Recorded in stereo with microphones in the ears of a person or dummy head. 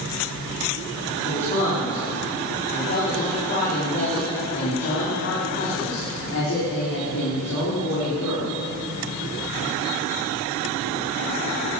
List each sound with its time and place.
1.2 s a man speaking: 35° left (ahead or behind), 4 m; by 8.5 s 85° left, 4.5 m